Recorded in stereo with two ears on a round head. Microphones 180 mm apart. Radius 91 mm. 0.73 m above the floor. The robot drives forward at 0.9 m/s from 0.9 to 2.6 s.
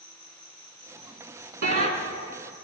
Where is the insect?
30° right (ahead or behind), 7.5 m; by 2.6 s 35° right (ahead or behind), 6.5 m.